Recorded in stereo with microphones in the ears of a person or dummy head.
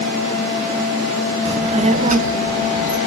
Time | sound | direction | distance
1.4 | a child speaking | 35° right (ahead or behind) | 0.8 m